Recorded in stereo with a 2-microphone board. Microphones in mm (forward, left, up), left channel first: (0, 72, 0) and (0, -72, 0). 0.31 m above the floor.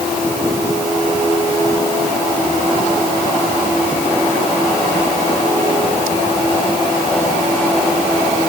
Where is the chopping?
No chopping in this recording.